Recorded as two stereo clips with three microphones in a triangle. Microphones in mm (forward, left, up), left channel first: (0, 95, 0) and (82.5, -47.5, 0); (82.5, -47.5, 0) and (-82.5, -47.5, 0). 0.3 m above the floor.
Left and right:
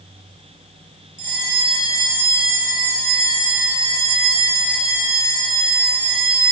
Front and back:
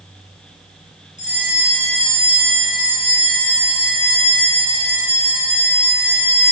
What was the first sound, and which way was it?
A bell, 45° left.